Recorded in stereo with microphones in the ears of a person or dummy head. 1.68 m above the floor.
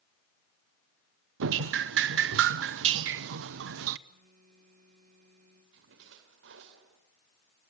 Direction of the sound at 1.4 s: 60° right (ahead or behind).